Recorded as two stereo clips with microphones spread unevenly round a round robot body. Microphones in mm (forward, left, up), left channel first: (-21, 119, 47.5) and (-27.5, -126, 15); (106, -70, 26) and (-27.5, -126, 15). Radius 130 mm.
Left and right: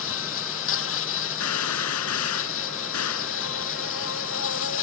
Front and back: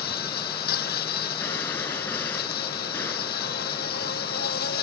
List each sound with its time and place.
0.0 s an insect: 50° left
1.4 s a gunshot: 105° left